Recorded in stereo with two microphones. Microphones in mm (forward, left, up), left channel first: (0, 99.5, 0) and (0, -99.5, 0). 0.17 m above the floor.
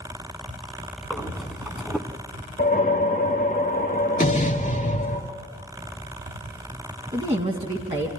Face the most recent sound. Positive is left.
turn(degrees=-30)  # may be behind; listen again after turning